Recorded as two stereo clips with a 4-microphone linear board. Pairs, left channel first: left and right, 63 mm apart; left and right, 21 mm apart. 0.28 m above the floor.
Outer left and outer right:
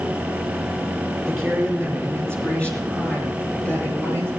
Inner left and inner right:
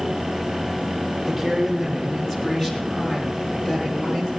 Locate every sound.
1.3 s a woman speaking: 5° left (ahead or behind), 3.5 m; by 4.3 s 30° left (ahead or behind), 5 m